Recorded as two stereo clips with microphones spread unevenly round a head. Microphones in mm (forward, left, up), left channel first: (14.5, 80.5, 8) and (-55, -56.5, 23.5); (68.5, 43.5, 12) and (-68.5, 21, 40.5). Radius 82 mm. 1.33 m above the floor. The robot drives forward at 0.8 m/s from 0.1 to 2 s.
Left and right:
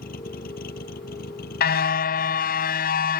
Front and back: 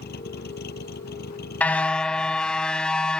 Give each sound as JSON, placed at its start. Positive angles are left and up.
{"t": 0.0, "sound": "a vehicle", "azimuth_deg": 20}
{"t": 1.6, "sound": "a car horn", "azimuth_deg": 95}